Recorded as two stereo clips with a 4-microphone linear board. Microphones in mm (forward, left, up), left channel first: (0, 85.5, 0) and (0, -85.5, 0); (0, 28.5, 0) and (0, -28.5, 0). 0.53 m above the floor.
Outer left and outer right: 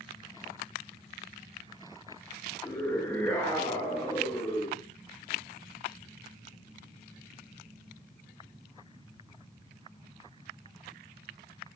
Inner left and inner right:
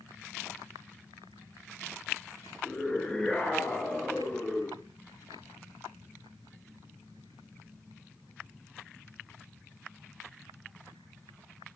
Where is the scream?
10° left (ahead or behind), 9 m; by 4.8 s 15° left (ahead or behind), 8 m.